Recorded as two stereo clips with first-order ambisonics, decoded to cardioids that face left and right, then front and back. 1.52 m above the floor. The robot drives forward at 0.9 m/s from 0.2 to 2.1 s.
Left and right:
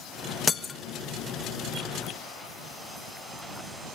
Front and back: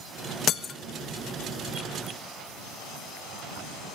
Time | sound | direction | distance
0.5 | breaking glass | 25° left | 0.8 m